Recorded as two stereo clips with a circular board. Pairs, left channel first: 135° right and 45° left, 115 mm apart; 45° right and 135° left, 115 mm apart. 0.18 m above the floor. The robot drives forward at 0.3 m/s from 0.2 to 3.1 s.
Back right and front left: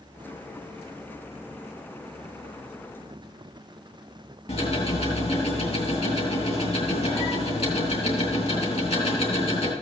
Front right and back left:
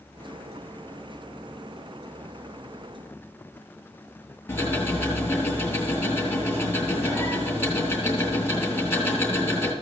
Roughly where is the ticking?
Behind right.